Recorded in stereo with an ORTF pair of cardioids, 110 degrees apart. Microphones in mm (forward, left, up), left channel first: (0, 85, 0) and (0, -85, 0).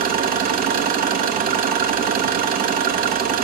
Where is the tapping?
No tapping in this recording.